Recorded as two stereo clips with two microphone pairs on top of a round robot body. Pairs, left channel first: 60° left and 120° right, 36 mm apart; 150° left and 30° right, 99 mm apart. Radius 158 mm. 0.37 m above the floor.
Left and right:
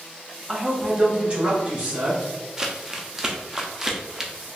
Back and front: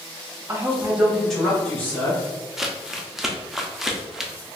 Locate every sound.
0.5 s a man speaking: 80° right, 1.2 m; by 2.2 s 145° right, 2.5 m
2.6 s crumpling: 130° right, 0.9 m